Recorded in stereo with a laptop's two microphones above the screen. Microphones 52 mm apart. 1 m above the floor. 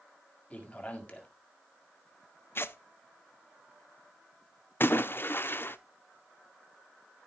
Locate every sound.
0.5 s a man speaking: 25° left (ahead or behind), 1.9 m
2.5 s tearing paper: 45° left (ahead or behind), 0.7 m
4.8 s a splash: 45° left (ahead or behind), 0.8 m